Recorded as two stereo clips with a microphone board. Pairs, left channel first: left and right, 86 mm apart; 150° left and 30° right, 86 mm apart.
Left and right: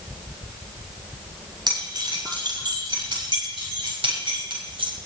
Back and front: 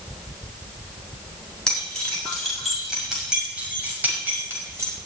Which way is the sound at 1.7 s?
130° right.